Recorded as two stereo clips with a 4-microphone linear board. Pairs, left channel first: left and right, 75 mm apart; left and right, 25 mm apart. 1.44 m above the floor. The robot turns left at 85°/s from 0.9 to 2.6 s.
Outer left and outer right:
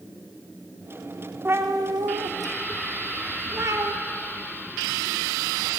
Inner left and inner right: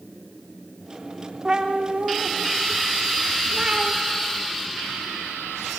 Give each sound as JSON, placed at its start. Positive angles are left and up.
{"t": 1.4, "sound": "a cat meowing", "azimuth_deg": -35, "distance_m": 2.0}